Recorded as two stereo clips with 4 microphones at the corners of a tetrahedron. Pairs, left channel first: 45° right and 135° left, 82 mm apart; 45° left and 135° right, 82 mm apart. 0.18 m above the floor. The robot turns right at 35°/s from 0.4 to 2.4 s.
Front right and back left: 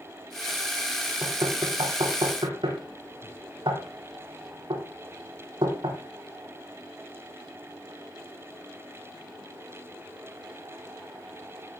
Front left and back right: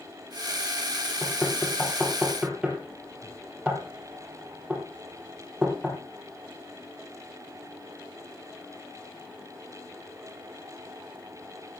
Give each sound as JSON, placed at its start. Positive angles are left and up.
{"t": 1.2, "sound": "knocking", "azimuth_deg": 110, "distance_m": 4.0}